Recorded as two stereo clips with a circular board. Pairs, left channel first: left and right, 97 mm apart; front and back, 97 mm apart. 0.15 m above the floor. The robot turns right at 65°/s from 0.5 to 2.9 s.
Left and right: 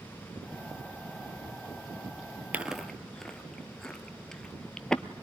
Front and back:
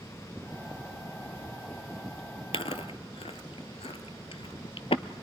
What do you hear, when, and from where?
2.5 s chewing: 15° right, 0.6 m; by 5.0 s 10° left, 0.6 m